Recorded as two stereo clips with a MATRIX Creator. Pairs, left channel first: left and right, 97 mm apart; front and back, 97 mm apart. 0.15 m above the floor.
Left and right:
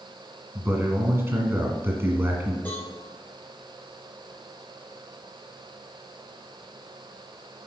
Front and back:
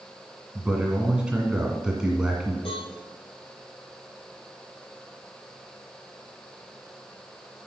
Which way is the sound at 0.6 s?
110° right.